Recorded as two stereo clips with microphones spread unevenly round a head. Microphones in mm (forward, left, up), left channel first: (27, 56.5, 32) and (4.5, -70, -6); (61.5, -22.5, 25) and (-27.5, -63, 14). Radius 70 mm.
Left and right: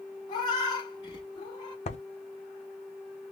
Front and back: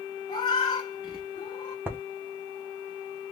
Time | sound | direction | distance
0.3 | a cat meowing | 55° left | 1.3 m
1.9 | writing | 130° left | 0.6 m